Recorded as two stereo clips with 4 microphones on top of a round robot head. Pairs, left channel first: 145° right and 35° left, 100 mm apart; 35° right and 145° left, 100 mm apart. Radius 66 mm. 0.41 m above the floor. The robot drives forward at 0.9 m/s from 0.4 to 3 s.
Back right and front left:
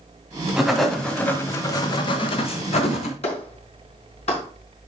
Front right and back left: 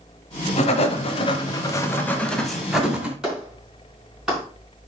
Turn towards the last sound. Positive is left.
turn(degrees=-130)